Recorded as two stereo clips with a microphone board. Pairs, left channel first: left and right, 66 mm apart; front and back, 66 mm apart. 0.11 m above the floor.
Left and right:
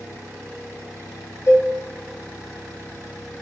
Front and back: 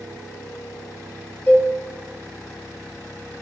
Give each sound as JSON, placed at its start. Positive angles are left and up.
{"t": 1.5, "sound": "a cowbell", "azimuth_deg": 45, "distance_m": 1.4}